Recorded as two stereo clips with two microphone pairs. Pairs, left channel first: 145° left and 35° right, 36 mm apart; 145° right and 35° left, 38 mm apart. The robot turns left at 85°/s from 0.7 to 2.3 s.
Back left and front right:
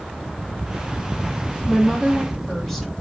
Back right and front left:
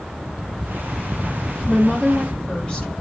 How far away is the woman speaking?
About 1.0 m.